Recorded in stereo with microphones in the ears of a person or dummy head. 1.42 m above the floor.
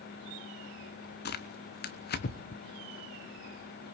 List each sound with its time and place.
1.2 s tearing paper: 50° left (ahead or behind), 1.0 m